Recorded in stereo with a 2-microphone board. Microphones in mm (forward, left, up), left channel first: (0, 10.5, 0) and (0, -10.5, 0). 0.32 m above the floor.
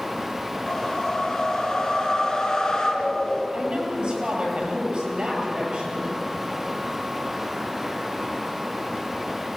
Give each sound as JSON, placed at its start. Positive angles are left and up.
{"t": 0.7, "sound": "a whoosh", "side_deg": 25, "distance_m": 4.0}
{"t": 3.5, "sound": "a woman speaking", "side_deg": -50, "distance_m": 8.5}